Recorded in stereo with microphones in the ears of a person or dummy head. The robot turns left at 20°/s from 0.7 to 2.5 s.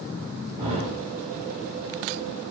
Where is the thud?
15° right (ahead or behind), 1.6 m.